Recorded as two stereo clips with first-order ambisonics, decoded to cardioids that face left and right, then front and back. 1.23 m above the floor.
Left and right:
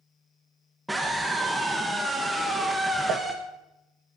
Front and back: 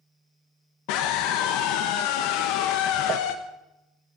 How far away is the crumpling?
About 1.3 m.